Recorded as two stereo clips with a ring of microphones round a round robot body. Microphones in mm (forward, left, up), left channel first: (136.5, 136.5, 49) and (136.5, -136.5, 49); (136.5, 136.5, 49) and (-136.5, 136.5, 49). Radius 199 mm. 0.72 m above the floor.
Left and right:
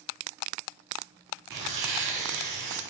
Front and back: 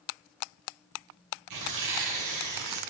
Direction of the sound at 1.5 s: 140° right.